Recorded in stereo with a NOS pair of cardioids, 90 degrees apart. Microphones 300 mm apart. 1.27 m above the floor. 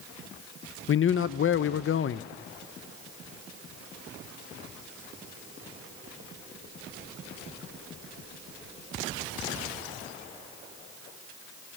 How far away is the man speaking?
About 0.8 m.